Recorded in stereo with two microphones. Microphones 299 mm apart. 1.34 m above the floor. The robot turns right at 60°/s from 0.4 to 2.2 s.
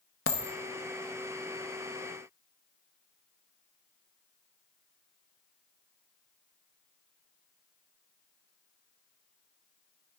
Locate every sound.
0.3 s a dropped coin: 45° left (ahead or behind), 0.8 m; by 0.5 s 40° left (ahead or behind), 0.8 m